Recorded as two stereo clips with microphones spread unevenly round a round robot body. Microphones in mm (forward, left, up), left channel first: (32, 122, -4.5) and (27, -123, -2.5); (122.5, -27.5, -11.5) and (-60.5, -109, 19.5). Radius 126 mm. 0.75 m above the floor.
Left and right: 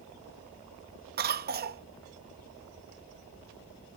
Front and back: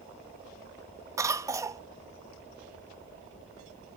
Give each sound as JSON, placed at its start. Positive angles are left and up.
{"t": 1.2, "sound": "a cough", "azimuth_deg": -80}